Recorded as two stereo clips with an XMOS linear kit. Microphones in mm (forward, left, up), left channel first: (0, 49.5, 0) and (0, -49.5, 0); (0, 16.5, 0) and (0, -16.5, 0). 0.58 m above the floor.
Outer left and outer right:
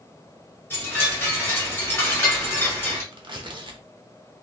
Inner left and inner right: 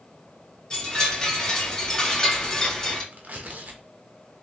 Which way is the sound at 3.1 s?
55° right (ahead or behind).